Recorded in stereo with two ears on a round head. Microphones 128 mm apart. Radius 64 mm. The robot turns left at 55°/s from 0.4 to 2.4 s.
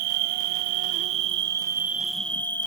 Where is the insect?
85° right, 0.8 m; by 2.7 s 165° left, 0.8 m.